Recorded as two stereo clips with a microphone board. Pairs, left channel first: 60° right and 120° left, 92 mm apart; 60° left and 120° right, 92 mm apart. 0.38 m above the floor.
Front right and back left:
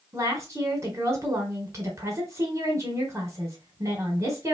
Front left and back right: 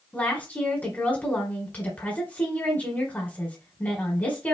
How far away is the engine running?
No engine running in this recording.